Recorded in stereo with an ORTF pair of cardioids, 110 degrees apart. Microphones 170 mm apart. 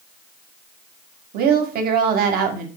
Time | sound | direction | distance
1.3 | a woman speaking | 65° right | 0.9 m